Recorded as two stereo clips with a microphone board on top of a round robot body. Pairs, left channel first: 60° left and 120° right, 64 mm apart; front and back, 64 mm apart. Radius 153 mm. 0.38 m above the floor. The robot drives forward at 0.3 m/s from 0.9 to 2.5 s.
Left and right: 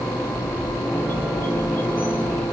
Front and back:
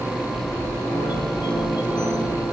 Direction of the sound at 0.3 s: Straight ahead.